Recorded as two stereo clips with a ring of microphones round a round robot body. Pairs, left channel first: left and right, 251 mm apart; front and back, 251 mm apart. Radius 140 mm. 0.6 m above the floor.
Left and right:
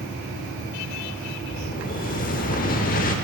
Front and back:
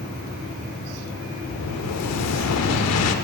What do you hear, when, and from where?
1.5 s an explosion: 30° left, 0.8 m